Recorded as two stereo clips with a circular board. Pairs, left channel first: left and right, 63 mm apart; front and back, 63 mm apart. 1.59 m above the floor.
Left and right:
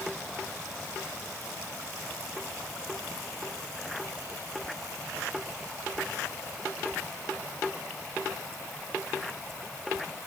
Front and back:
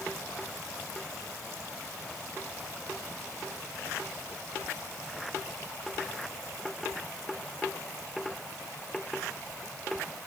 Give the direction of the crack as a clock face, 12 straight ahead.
No crack in this recording.